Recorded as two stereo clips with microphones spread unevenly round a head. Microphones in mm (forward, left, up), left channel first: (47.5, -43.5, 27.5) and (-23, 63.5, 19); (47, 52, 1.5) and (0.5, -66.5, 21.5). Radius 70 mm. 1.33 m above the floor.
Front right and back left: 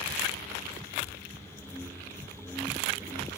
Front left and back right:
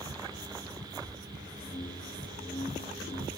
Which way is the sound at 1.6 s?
25° left.